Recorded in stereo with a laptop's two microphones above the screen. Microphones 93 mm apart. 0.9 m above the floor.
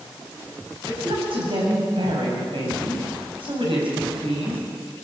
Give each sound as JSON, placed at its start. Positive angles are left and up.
{"t": 0.9, "sound": "a woman speaking", "side_deg": -75, "distance_m": 7.0}